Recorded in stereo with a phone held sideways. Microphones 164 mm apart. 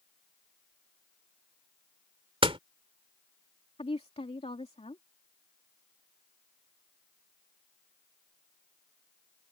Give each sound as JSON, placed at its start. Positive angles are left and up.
{"t": 2.4, "sound": "a door slam", "side_deg": -35}
{"t": 3.8, "sound": "a woman speaking", "side_deg": 40}